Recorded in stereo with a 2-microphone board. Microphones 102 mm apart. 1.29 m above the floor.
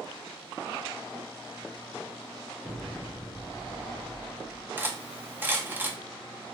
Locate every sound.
2.6 s an explosion: 15° right (ahead or behind), 2.5 m
4.8 s cutlery clinking: 20° right (ahead or behind), 0.5 m